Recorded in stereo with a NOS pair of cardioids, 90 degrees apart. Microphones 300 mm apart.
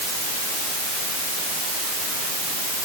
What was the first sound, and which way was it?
Only background noise.